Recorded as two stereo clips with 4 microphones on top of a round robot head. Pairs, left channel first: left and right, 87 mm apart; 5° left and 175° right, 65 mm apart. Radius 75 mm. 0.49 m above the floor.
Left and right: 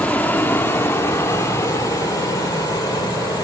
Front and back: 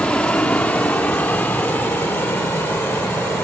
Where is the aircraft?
50° left; by 3.4 s 55° left.